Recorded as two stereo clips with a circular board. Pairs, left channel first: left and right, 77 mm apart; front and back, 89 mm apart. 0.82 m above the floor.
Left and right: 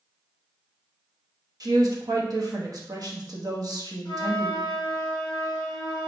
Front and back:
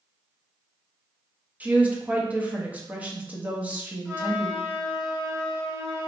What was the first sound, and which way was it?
A woman speaking, 110° right.